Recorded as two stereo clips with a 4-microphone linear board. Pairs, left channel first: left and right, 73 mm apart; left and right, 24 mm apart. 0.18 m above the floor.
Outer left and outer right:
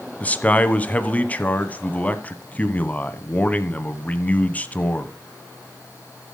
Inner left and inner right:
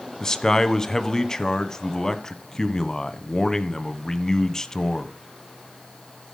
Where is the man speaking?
20° left (ahead or behind), 1.1 m.